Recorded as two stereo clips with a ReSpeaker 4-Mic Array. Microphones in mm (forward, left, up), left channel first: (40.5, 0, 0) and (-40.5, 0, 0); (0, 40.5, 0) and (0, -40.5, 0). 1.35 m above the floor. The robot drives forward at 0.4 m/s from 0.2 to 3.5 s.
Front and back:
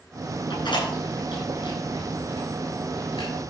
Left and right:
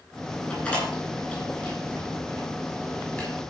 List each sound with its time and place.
0.5 s a door slam: 20° left, 8 m; by 3.3 s 25° left, 7 m